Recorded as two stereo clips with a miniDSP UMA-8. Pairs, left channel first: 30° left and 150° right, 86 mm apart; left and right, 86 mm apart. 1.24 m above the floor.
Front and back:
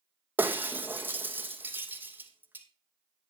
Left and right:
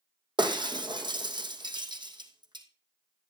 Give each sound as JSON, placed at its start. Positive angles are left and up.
{"t": 0.4, "sound": "breaking glass", "azimuth_deg": -85, "distance_m": 2.5}